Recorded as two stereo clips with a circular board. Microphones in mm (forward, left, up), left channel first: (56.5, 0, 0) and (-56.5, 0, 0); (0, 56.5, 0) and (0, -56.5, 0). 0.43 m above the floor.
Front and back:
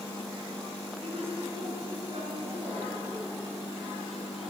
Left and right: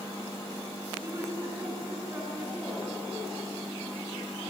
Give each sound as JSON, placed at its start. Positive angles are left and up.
{"t": 1.0, "sound": "a woman speaking", "azimuth_deg": -150, "distance_m": 4.5}